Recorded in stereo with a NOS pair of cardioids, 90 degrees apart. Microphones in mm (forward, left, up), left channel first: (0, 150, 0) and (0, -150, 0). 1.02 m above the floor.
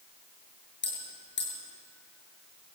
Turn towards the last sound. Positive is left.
turn(degrees=40)